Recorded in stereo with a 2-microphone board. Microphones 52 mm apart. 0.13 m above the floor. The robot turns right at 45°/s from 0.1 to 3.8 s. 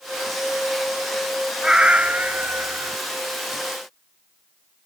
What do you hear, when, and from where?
1.6 s a cat meowing: 160° right; by 3.0 s 100° right